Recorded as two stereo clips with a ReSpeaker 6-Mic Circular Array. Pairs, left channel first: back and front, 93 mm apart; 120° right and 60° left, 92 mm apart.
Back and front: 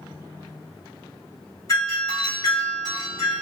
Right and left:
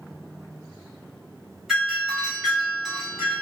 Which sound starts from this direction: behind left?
A doorbell, at 1.7 s.